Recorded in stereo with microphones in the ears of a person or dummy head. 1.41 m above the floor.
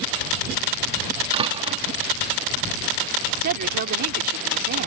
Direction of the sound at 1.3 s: 30° right (ahead or behind).